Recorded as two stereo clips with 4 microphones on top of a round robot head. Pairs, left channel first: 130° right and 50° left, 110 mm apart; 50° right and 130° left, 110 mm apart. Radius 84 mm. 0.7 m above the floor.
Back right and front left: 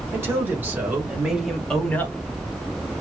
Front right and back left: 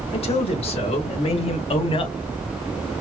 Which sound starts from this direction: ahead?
A man speaking, at 0.1 s.